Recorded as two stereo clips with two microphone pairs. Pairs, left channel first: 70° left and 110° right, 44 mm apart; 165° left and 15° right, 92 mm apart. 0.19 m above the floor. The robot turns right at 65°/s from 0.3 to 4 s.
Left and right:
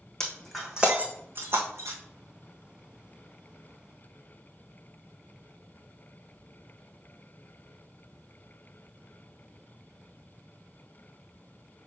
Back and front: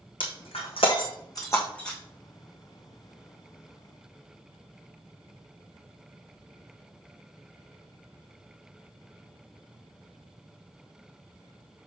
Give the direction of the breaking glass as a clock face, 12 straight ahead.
7 o'clock.